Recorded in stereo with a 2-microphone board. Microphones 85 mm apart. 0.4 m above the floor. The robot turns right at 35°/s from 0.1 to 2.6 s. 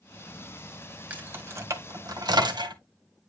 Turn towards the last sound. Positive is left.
turn(degrees=-60)  # may be behind; listen again after turning